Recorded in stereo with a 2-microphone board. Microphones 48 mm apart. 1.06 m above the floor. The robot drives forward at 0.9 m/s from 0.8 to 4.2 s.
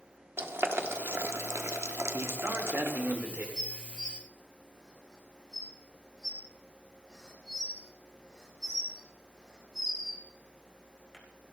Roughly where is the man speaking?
Right.